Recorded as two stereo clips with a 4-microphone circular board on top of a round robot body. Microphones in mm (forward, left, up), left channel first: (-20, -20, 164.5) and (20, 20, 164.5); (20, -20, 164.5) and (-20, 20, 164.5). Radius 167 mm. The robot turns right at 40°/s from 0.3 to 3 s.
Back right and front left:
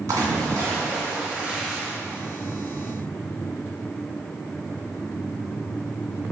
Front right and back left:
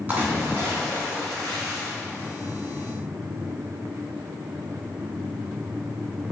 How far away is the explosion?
No explosion in this recording.